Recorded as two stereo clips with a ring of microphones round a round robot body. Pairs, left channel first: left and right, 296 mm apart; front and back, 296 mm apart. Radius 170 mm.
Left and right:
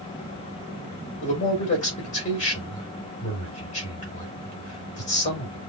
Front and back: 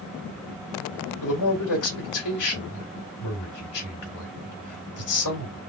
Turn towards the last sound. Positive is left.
turn(degrees=20)